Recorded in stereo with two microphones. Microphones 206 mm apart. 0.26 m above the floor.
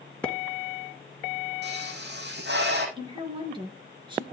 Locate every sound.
0.2 s a splash: 5° left (ahead or behind), 1.3 m
1.6 s a pop: 55° right (ahead or behind), 5 m
3.0 s a woman speaking: 25° right (ahead or behind), 4.5 m